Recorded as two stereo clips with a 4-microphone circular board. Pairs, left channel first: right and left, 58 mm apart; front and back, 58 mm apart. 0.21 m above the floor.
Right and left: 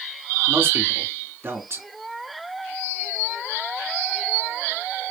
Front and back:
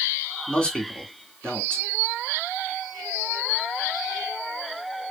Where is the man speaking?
65° left, 2.5 m.